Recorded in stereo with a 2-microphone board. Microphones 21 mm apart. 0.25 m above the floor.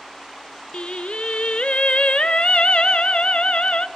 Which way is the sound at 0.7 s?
55° left (ahead or behind).